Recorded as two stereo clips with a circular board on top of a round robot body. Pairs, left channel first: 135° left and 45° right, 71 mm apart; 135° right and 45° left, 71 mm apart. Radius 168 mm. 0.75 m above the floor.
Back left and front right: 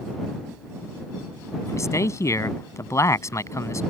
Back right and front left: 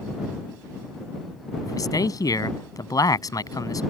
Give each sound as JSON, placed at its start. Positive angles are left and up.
{"t": 1.6, "sound": "a man speaking", "azimuth_deg": -175}